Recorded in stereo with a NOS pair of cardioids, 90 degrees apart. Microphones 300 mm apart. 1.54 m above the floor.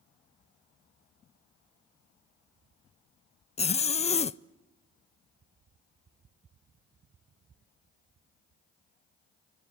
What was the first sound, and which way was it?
A zipper, 20° left.